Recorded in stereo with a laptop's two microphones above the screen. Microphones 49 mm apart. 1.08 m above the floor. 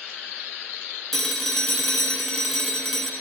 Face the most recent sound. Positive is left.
turn(degrees=5)  # may be behind; listen again after turning